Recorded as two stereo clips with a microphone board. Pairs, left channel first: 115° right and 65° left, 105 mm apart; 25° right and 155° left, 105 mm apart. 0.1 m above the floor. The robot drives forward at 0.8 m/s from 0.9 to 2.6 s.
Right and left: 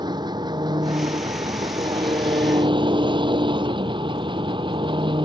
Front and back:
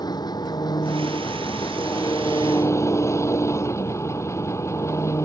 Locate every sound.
0.0 s an engine running: 25° left; by 5.2 s 35° left